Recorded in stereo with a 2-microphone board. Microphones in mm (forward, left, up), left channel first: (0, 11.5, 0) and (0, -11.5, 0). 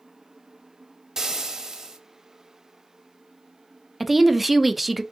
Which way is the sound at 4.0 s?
5° right (ahead or behind).